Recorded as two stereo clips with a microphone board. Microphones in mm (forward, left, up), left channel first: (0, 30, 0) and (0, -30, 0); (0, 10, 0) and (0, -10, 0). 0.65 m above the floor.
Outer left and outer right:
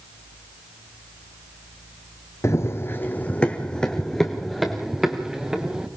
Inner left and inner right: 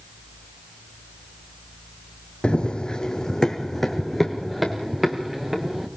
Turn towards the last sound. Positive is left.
turn(degrees=-10)  # may be behind; listen again after turning